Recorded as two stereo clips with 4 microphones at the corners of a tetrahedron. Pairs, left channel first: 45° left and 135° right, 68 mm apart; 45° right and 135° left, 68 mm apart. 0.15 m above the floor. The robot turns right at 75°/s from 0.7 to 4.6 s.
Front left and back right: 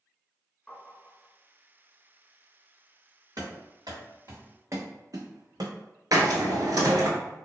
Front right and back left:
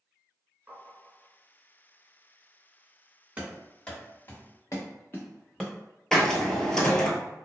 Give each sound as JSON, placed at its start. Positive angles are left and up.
{"t": 0.7, "sound": "tapping", "azimuth_deg": 95, "distance_m": 1.3}
{"t": 3.4, "sound": "running footsteps", "azimuth_deg": -155, "distance_m": 1.6}
{"t": 6.1, "sound": "a hiss", "azimuth_deg": -125, "distance_m": 0.6}